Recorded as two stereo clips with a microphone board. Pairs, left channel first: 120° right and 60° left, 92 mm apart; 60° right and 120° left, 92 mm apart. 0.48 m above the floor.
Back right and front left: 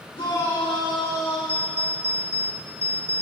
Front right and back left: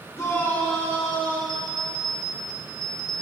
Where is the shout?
110° right, 3.5 m; by 1.4 s 130° right, 3 m.